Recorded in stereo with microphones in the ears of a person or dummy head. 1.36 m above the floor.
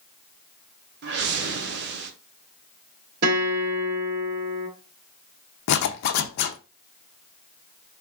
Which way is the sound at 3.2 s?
55° right (ahead or behind).